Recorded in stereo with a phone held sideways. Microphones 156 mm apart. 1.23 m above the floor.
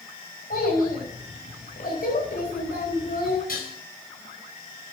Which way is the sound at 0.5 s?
70° left (ahead or behind).